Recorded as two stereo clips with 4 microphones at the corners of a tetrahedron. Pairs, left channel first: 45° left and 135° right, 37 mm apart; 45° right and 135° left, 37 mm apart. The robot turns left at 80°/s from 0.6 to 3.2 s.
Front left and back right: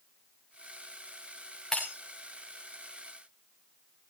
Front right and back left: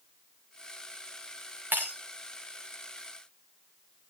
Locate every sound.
1.7 s breaking glass: 125° left, 4.5 m; by 1.9 s 105° left, 4.5 m